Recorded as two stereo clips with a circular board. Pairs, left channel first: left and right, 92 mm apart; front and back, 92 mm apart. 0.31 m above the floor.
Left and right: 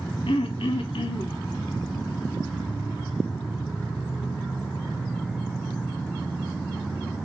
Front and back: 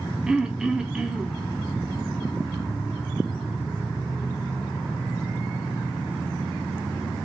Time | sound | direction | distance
0.3 | throat clearing | 100° left | 0.6 m